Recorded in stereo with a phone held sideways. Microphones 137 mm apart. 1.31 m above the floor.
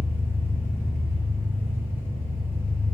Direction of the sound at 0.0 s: 15° right (ahead or behind).